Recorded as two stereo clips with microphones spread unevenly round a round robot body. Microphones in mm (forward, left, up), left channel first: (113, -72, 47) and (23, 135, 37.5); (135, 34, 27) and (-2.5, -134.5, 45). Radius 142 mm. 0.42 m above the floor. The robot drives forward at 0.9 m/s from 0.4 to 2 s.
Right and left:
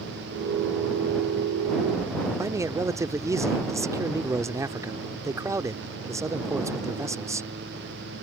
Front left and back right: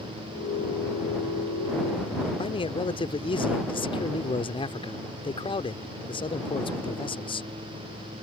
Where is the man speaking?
55° left.